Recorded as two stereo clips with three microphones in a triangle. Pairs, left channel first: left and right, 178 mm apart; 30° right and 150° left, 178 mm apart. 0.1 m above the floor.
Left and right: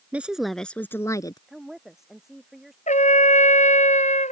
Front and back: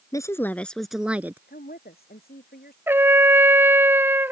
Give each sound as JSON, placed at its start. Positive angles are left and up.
{"t": 0.1, "sound": "a woman speaking", "azimuth_deg": -25}
{"t": 1.5, "sound": "a woman speaking", "azimuth_deg": 0}
{"t": 2.9, "sound": "a trumpet", "azimuth_deg": 80}